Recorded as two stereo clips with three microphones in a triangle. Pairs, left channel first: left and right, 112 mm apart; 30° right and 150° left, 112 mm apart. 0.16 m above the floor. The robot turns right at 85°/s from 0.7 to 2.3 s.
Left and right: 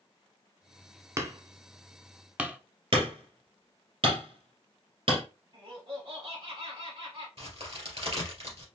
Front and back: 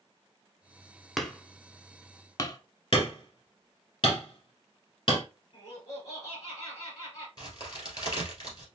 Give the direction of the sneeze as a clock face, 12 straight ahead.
No sneeze in this recording.